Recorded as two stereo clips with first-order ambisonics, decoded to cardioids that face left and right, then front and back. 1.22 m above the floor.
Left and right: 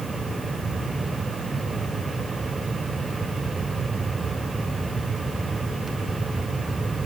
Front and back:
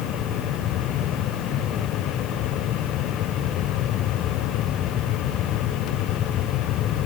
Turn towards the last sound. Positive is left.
No sound to turn to.